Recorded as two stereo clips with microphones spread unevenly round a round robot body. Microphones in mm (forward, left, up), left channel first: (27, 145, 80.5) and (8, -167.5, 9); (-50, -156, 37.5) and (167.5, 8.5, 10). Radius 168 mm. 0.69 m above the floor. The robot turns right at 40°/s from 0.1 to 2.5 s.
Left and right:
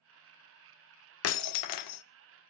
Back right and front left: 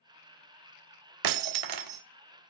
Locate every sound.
1.2 s breaking glass: 40° left, 0.7 m; by 2.0 s 75° left, 0.7 m